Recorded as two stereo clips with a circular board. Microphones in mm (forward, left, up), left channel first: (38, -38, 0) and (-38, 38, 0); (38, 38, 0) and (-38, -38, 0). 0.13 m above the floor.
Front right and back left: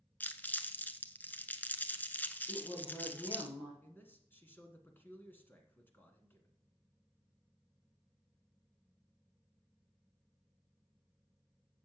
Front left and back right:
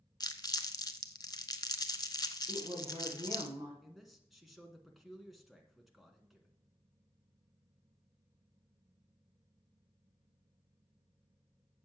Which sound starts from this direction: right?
A woman speaking, at 2.5 s.